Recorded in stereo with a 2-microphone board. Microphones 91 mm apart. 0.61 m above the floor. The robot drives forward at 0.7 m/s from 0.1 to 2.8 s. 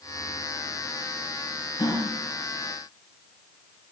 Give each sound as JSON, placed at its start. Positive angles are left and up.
{"t": 1.8, "sound": "a gasp", "side_deg": 60, "distance_m": 4.5}